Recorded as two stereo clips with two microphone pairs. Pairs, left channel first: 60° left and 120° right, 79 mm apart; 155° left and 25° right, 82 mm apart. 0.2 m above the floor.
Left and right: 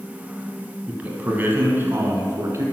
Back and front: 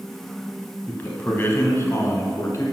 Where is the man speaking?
170° right, 1.2 m; by 2.6 s 160° right, 1.8 m.